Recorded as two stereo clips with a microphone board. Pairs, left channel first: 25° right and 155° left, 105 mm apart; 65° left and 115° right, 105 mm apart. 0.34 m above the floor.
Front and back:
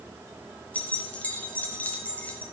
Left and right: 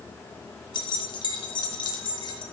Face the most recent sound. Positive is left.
turn(degrees=50)